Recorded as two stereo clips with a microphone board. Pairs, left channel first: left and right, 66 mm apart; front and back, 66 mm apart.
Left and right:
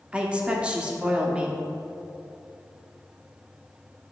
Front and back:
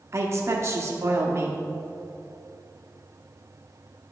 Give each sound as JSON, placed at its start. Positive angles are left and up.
{"t": 0.1, "sound": "a woman speaking", "azimuth_deg": -160, "distance_m": 1.0}